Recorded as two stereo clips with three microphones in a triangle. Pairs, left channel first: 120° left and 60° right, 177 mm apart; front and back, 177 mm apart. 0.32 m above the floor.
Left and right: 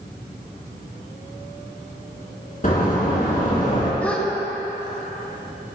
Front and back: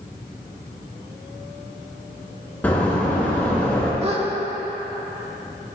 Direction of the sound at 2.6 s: 80° left.